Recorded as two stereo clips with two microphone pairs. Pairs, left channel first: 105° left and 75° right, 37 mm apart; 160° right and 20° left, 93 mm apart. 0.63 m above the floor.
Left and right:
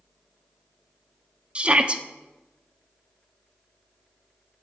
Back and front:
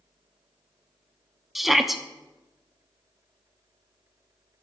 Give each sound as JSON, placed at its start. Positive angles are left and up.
{"t": 1.6, "sound": "a shout", "azimuth_deg": -70, "distance_m": 0.8}